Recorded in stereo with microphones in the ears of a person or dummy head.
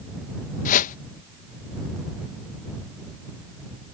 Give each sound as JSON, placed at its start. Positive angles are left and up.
{"t": 0.7, "sound": "a whoosh", "side_deg": 40}